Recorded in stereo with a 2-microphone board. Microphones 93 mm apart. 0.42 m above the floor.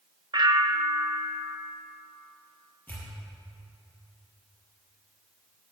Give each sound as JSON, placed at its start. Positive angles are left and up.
{"t": 0.3, "sound": "a bell", "side_deg": -55, "distance_m": 0.6}
{"t": 2.9, "sound": "a pop", "side_deg": 20, "distance_m": 4.5}